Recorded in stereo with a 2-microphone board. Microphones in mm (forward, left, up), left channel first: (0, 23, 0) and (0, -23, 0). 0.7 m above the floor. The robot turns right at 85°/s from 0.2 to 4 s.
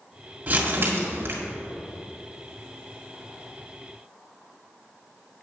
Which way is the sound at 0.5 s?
140° right.